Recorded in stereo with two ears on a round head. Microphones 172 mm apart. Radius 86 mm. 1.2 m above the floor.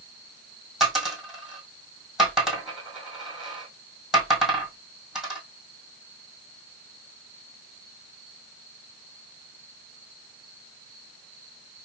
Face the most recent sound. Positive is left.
turn(degrees=0)  # may be behind; listen again after turning